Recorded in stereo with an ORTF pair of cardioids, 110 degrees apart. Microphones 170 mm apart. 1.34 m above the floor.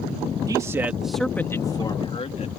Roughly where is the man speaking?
Ahead.